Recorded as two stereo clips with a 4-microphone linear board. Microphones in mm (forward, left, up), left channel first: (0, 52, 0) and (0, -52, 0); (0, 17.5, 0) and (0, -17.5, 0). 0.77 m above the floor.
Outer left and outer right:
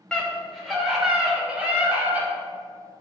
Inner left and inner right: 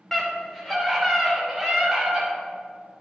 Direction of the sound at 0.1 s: 10° left (ahead or behind).